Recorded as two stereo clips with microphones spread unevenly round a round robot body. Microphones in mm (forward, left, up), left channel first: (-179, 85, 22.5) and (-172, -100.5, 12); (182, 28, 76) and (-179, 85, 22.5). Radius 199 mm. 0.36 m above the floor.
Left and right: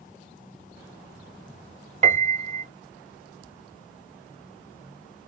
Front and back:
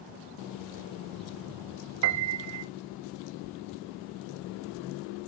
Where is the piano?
140° right, 0.7 m.